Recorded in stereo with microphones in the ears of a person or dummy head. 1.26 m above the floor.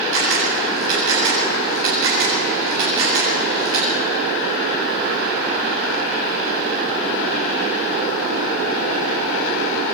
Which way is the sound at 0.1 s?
85° right.